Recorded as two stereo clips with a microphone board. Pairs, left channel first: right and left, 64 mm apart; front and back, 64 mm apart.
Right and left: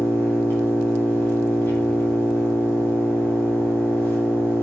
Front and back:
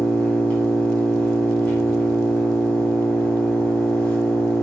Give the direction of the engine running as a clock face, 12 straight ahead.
2 o'clock.